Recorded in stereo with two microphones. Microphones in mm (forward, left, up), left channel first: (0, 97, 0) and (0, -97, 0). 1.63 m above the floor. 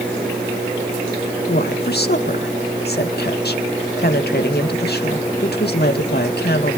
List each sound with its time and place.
1.5 s a woman speaking: 55° left (ahead or behind), 2 m